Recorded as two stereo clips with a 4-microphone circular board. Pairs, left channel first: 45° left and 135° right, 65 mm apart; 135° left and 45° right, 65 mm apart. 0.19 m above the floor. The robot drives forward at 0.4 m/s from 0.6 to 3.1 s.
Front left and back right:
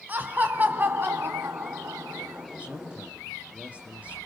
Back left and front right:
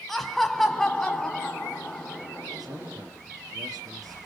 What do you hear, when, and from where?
0.1 s laughter: 140° right, 1.2 m; by 2.5 s 165° right, 1.6 m
2.6 s a man speaking: 65° right, 3.5 m